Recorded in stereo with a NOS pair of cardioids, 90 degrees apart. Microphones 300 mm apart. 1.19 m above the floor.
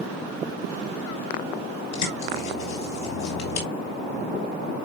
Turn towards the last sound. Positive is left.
turn(degrees=65)